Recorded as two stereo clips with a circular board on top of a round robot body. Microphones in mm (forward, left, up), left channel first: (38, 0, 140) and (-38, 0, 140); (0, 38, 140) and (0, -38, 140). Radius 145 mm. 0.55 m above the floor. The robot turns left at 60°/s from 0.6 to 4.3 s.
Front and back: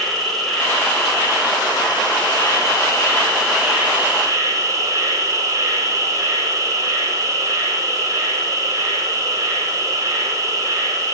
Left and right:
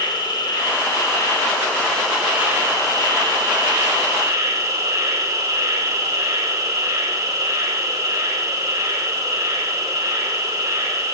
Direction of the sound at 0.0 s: 85° left.